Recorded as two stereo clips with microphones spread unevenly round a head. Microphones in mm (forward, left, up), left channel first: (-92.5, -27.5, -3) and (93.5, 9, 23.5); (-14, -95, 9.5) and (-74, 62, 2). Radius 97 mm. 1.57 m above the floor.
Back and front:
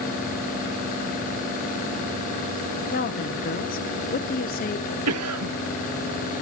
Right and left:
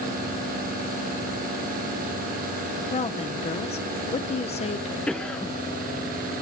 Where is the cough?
15° left, 1.5 m.